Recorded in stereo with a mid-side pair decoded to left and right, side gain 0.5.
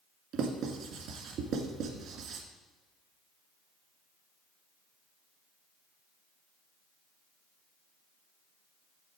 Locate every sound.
0.3 s writing: 70° right, 1.8 m